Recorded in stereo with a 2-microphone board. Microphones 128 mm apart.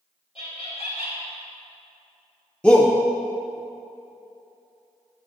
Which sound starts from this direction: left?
Laughter, at 0.3 s.